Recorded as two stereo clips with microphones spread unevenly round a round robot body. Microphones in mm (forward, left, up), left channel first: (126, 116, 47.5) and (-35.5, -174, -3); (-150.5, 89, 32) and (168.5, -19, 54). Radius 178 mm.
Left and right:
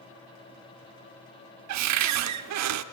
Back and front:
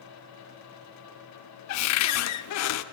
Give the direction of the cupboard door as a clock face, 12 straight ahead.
5 o'clock.